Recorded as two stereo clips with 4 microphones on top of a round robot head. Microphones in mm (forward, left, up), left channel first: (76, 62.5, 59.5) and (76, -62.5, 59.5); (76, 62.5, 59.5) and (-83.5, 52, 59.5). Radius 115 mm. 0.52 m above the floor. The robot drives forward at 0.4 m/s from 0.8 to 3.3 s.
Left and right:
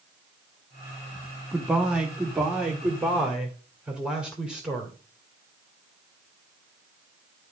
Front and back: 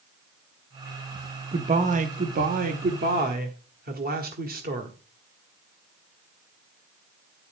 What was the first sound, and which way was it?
A man speaking, 170° right.